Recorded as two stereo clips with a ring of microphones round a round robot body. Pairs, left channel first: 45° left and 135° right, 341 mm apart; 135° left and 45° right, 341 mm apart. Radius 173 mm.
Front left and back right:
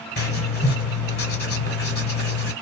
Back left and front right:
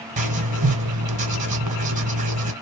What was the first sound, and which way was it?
Writing, 10° left.